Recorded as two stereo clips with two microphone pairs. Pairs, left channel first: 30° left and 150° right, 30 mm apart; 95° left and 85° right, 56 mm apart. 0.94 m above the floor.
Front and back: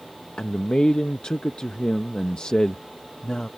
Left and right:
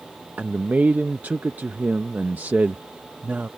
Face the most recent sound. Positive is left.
turn(degrees=-25)